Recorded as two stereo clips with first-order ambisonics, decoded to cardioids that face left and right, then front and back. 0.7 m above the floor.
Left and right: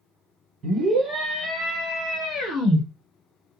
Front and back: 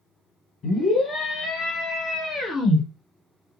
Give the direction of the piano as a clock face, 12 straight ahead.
No piano in this recording.